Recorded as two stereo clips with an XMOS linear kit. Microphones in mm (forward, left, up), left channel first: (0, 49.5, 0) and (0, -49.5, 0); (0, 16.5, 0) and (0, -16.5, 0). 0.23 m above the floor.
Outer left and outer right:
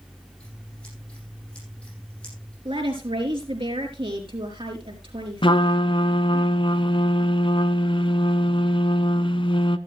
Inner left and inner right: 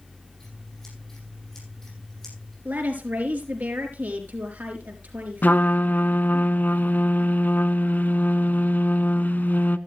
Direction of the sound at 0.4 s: 10° left (ahead or behind).